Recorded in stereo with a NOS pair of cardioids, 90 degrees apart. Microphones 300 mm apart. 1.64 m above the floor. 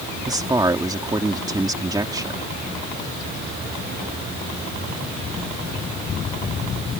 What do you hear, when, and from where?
0.3 s a man speaking: 15° right